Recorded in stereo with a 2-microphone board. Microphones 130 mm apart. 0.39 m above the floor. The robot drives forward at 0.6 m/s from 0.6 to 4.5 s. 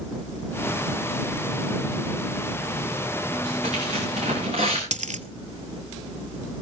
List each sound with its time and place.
3.3 s tearing paper: 55° right (ahead or behind), 9.5 m; by 4.8 s 50° right (ahead or behind), 10 m
4.9 s a dropped coin: 65° right (ahead or behind), 0.8 m